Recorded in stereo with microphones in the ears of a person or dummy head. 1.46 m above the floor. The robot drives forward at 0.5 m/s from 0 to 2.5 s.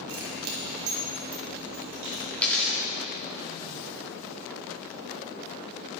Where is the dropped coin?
10° left (ahead or behind), 1.1 m.